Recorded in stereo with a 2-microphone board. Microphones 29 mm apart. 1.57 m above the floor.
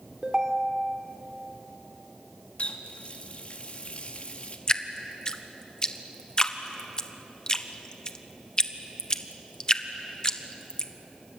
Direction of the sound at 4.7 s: 30° left (ahead or behind).